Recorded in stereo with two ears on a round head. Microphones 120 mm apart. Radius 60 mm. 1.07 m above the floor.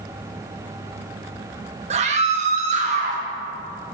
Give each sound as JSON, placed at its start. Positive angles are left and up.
{"t": 1.9, "sound": "a scream", "side_deg": -55, "distance_m": 1.7}